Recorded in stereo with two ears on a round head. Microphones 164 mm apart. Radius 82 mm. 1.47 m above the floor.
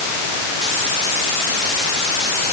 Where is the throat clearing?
No throat clearing in this recording.